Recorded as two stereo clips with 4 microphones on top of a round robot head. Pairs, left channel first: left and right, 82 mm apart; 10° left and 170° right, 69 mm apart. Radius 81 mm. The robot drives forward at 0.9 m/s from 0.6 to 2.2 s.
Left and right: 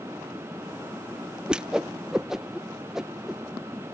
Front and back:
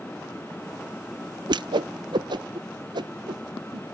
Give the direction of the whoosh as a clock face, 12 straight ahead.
6 o'clock.